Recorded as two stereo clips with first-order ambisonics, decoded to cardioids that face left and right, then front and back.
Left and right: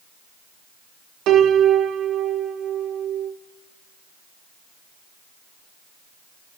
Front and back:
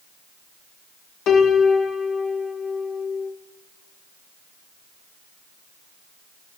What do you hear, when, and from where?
1.3 s a piano: 50° right, 0.6 m